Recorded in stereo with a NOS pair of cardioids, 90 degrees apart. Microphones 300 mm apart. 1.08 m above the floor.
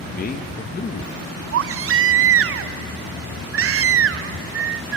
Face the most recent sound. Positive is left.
turn(degrees=-45)